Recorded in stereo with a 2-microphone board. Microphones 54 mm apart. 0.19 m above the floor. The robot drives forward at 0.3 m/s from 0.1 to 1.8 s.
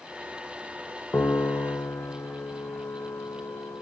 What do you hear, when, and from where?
1.1 s a piano: 45° left (ahead or behind), 1.2 m; by 3.8 s 50° left (ahead or behind), 1.0 m